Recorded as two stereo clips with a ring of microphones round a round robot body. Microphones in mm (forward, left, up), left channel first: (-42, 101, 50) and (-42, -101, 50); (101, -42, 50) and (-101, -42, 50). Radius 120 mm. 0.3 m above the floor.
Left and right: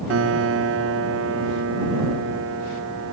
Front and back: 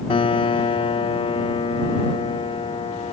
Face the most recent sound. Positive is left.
turn(degrees=-65)